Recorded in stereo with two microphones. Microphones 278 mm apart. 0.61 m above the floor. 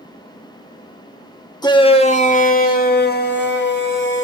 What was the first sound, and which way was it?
A shout, 15° left (ahead or behind).